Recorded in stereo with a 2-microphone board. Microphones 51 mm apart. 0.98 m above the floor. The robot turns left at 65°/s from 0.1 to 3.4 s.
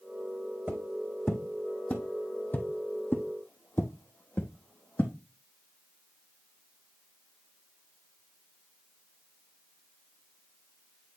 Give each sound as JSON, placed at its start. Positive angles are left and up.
{"t": 0.7, "sound": "footsteps", "side_deg": -30, "distance_m": 2.0}